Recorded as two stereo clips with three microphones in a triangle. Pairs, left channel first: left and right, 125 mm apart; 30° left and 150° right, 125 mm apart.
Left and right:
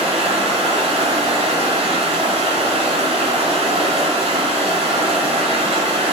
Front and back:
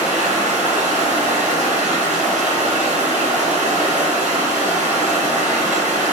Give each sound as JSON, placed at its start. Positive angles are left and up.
{"t": 0.0, "sound": "running water", "azimuth_deg": -130, "distance_m": 0.7}